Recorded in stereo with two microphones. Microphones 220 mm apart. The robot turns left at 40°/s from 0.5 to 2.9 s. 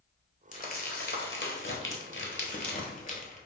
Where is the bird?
I don't hear a bird.